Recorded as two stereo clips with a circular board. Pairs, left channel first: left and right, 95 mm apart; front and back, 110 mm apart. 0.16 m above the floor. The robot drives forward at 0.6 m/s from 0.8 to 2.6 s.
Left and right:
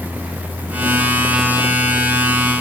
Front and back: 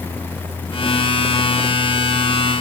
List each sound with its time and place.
Only background noise.